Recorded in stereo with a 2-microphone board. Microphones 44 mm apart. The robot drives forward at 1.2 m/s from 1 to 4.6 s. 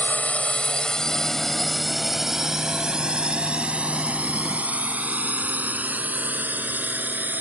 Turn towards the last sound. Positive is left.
turn(degrees=-40)  # may be behind; listen again after turning